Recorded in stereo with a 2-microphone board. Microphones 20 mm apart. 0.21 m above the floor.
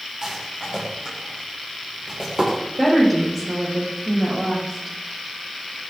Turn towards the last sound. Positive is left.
turn(degrees=-10)  # may be behind; listen again after turning